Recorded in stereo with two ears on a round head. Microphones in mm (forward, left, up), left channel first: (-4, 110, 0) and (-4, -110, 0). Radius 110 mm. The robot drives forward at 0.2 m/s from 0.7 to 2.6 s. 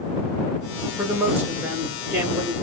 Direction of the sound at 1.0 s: 10° right (ahead or behind).